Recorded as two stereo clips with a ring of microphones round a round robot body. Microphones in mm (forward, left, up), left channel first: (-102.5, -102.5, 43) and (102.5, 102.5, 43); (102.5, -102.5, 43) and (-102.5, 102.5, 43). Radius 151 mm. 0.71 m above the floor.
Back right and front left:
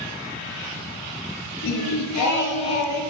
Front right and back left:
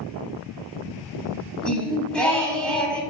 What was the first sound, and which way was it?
Singing, 130° right.